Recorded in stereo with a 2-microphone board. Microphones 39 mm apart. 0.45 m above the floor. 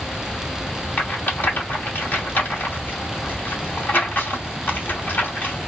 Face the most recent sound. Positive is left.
turn(degrees=55)  # may be behind; listen again after turning